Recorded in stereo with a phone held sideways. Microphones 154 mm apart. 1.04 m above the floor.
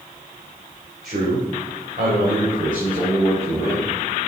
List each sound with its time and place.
1.0 s a man speaking: 75° right (ahead or behind), 3 m; by 3.9 s 60° right (ahead or behind), 4.5 m